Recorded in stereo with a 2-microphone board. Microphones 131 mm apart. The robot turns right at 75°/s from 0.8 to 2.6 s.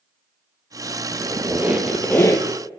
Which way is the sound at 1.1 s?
60° right.